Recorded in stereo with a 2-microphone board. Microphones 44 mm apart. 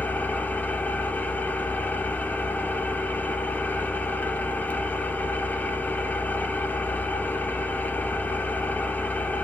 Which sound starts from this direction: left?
An engine running, at 0.0 s.